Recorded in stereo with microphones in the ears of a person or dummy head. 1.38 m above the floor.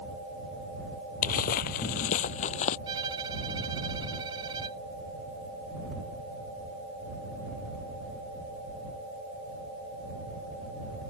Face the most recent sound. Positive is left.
turn(degrees=-25)  # may be behind; listen again after turning